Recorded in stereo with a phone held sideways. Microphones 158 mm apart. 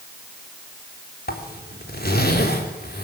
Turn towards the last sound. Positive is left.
turn(degrees=80)